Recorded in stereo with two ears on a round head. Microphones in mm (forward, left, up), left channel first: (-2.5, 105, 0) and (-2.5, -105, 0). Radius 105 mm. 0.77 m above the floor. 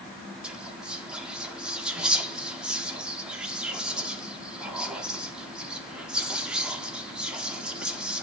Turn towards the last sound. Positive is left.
turn(degrees=-5)  # may be behind; listen again after turning